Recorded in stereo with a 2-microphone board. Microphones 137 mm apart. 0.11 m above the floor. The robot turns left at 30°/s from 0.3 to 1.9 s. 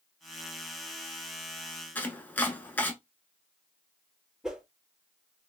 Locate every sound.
1.9 s chopping: 15° left (ahead or behind), 0.6 m
4.4 s a whoosh: 5° right (ahead or behind), 0.6 m